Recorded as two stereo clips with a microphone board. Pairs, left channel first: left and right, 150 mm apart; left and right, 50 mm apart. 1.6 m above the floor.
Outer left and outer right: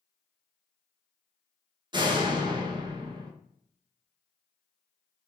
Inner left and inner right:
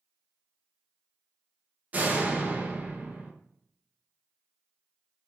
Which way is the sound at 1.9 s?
30° right (ahead or behind).